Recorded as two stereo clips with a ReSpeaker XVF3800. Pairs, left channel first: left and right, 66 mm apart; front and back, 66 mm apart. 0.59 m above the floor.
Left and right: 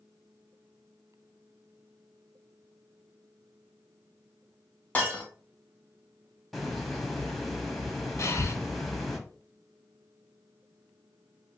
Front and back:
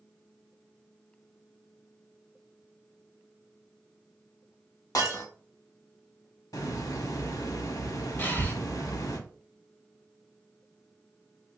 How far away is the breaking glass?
About 1.3 m.